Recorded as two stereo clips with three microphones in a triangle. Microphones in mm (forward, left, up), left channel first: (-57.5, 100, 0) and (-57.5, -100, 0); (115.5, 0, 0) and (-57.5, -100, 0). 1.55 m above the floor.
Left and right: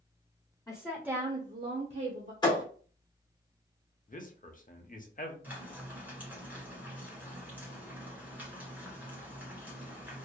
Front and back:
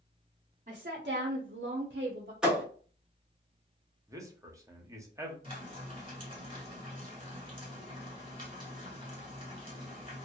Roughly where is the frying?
Behind.